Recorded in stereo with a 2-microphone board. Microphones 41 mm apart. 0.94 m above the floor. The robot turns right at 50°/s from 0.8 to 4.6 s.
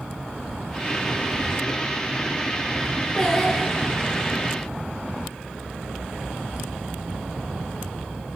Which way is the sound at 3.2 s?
155° left.